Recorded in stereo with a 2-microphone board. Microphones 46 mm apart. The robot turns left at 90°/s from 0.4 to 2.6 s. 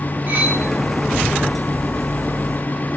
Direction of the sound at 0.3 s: 50° right (ahead or behind).